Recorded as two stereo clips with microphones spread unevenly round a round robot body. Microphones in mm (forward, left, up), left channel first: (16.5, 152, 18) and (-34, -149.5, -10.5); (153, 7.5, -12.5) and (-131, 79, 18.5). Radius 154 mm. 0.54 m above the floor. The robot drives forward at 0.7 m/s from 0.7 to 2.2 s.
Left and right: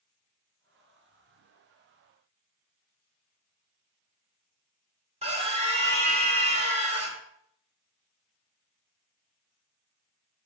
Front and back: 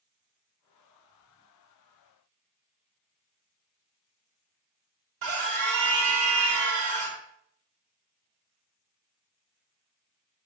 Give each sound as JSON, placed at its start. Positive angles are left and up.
{"t": 5.2, "sound": "a scream", "azimuth_deg": -165, "distance_m": 1.7}